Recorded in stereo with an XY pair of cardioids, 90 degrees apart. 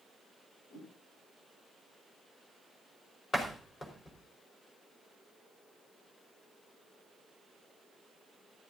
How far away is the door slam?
About 5 m.